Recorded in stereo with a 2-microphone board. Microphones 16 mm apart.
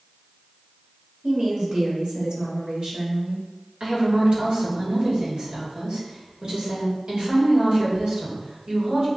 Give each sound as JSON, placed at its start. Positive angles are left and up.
{"t": 1.2, "sound": "a woman speaking", "side_deg": -75, "distance_m": 1.6}
{"t": 3.8, "sound": "a woman speaking", "side_deg": -70, "distance_m": 1.7}